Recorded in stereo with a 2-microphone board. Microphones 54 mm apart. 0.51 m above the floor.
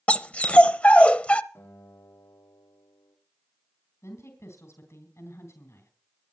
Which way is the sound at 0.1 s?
25° left (ahead or behind).